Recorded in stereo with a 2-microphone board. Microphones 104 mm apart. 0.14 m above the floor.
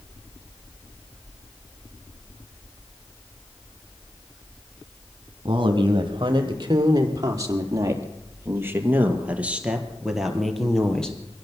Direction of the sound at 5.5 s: 50° right (ahead or behind).